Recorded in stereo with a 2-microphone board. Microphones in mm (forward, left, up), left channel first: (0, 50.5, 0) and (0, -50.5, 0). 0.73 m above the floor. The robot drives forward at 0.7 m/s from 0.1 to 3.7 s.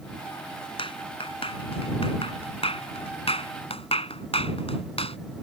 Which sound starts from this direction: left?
A clap, at 0.8 s.